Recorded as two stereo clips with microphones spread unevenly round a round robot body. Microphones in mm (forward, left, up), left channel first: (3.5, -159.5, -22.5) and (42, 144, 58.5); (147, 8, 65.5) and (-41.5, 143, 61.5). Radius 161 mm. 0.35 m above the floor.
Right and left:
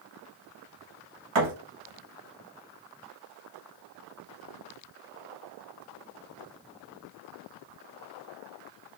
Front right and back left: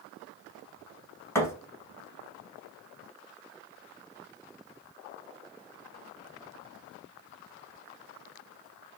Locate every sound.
1.4 s a thud: 45° left, 1.0 m